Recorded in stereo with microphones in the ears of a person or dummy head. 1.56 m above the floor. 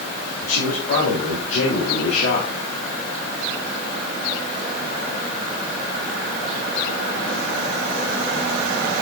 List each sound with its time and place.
0.4 s a man speaking: 55° left (ahead or behind), 4 m